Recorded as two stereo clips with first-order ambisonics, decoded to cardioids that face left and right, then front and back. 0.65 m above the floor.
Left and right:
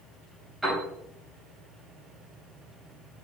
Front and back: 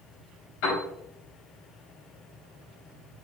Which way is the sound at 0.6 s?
10° right.